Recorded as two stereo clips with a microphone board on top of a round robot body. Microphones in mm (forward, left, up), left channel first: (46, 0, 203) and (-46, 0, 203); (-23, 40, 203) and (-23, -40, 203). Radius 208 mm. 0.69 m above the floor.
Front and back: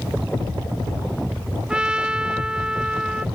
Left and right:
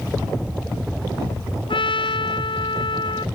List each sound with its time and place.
1.7 s a trumpet: 100° left